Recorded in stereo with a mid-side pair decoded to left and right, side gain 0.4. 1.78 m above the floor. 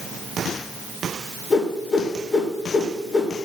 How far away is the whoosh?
About 2.5 m.